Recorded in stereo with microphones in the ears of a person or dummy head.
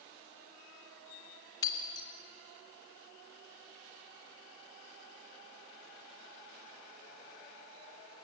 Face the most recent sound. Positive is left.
turn(degrees=25)  # may be behind; listen again after turning